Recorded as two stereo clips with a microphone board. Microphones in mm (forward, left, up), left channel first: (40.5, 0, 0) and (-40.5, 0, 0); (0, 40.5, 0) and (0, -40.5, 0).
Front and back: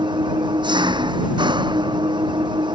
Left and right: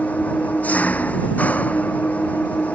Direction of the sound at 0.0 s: 160° left.